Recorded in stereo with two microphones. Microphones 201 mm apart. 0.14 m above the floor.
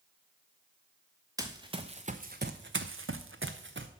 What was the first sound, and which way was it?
Running footsteps, 15° right (ahead or behind).